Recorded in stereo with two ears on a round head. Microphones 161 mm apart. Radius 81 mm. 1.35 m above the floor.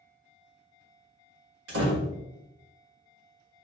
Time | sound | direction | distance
1.7 | a door slam | 65° right (ahead or behind) | 1.3 m